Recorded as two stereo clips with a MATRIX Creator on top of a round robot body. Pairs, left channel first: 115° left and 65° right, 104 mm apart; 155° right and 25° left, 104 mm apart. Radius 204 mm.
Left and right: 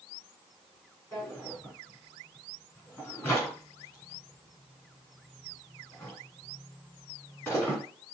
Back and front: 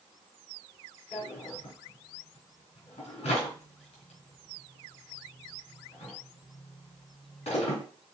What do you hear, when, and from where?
1.1 s a drawer: 175° left, 3 m